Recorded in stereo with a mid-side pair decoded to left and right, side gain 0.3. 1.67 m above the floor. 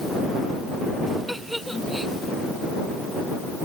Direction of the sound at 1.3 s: 5° right.